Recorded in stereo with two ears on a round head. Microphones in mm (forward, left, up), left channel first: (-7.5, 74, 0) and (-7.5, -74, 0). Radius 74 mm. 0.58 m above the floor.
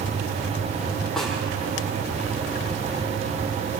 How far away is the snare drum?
About 7 m.